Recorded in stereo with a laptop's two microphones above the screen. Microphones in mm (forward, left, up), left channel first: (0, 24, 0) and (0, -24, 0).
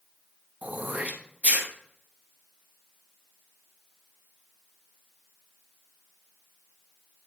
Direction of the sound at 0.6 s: 35° right (ahead or behind).